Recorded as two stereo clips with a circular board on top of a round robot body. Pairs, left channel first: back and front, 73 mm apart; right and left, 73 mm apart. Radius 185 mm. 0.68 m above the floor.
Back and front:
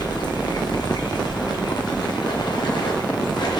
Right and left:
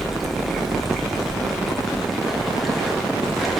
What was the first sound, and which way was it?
Running water, straight behind.